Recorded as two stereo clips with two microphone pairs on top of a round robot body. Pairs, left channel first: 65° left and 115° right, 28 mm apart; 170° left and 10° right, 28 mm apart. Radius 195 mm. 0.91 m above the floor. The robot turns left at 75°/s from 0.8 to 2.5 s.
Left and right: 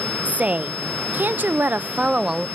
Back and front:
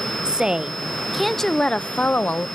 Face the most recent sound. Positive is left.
turn(degrees=160)